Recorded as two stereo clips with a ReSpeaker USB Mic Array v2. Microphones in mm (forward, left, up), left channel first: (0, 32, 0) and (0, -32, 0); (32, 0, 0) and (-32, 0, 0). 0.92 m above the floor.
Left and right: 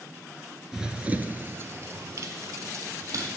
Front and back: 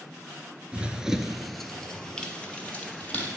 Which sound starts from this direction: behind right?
Running footsteps, at 0.7 s.